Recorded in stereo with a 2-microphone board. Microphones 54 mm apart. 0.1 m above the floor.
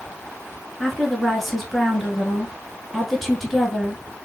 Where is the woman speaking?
5° left (ahead or behind), 1.2 m.